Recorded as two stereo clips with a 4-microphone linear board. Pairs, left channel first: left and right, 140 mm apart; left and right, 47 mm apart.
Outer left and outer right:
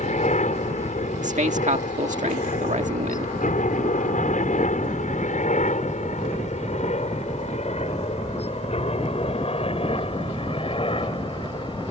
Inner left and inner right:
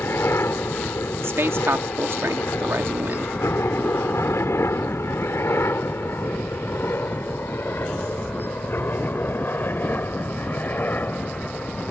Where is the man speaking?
60° right (ahead or behind).